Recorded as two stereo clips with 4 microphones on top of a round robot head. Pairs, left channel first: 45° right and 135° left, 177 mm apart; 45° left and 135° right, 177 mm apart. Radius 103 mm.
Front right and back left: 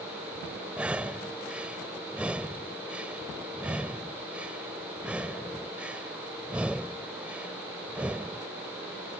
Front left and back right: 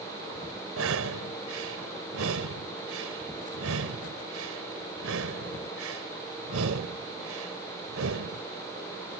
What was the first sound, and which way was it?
Breathing, 140° right.